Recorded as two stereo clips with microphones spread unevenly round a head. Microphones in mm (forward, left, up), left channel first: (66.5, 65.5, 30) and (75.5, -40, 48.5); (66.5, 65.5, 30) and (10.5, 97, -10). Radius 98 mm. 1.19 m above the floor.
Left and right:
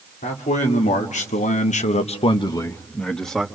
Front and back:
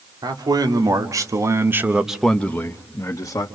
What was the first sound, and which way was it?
A man speaking, 125° left.